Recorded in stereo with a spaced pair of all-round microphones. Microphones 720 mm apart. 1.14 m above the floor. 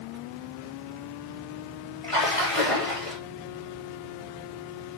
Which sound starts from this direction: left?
A splash, at 2.0 s.